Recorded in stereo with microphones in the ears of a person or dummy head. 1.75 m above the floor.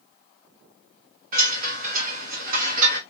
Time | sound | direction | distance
1.3 | a chime | 50° right (ahead or behind) | 1.5 m